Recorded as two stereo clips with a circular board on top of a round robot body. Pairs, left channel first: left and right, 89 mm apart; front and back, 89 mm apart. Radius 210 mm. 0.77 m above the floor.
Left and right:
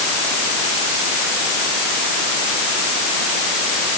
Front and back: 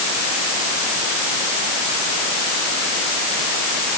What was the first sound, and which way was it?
Only background noise.